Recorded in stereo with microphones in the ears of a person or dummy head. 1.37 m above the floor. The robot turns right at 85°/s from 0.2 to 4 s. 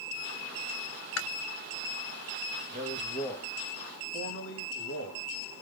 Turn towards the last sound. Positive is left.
turn(degrees=70)